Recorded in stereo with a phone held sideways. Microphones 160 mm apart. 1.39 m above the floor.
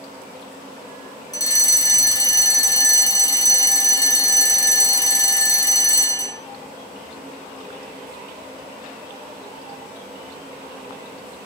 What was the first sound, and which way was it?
A fire alarm, 20° left (ahead or behind).